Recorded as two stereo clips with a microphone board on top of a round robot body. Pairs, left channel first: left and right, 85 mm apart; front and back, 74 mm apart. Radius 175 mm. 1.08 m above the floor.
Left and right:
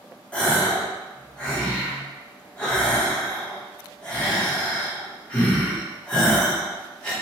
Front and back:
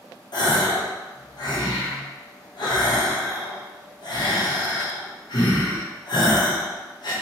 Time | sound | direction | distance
0.3 | a gasp | 15° left | 1.6 m